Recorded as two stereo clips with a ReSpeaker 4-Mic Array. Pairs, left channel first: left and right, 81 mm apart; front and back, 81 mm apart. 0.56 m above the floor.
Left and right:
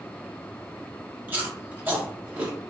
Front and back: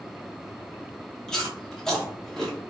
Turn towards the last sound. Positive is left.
turn(degrees=-70)